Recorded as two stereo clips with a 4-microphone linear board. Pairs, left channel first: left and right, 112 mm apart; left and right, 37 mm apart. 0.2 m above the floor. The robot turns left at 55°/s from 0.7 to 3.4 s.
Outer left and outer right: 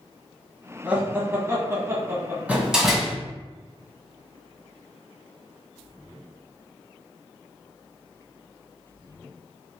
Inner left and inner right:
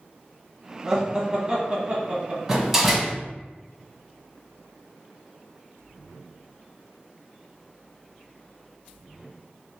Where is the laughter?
10° right (ahead or behind), 1.2 m; by 2.4 s 20° right (ahead or behind), 1.2 m.